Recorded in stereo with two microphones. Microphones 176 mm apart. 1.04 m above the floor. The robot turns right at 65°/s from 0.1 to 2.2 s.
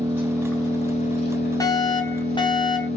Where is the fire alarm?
20° left (ahead or behind), 1.1 m; by 2.9 s 25° left (ahead or behind), 1.1 m.